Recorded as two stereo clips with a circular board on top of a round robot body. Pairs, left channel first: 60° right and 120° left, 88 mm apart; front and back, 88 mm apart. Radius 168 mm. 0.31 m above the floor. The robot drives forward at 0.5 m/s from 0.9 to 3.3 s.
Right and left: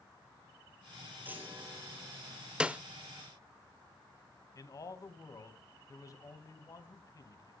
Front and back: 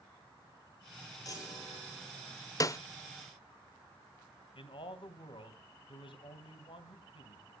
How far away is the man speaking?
About 3.5 m.